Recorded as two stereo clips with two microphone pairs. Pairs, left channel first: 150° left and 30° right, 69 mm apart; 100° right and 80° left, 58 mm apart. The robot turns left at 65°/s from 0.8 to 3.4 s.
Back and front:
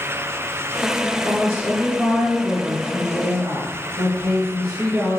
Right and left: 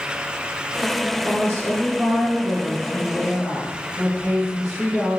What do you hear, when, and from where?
1.2 s a woman speaking: 135° left, 5 m; by 5.2 s 10° right, 5 m